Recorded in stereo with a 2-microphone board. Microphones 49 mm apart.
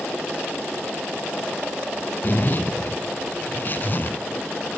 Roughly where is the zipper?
Left.